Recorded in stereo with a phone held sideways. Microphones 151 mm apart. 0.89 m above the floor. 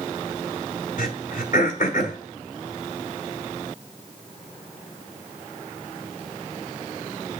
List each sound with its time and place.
1.0 s throat clearing: 65° left (ahead or behind), 1.4 m